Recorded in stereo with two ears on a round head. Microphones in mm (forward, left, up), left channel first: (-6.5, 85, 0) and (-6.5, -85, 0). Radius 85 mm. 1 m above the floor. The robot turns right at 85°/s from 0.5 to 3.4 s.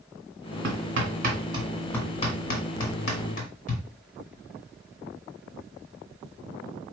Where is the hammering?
70° right (ahead or behind), 2 m; by 3.8 s 45° left (ahead or behind), 2 m.